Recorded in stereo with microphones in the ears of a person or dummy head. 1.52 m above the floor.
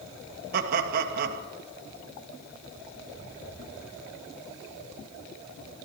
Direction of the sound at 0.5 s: 50° right (ahead or behind).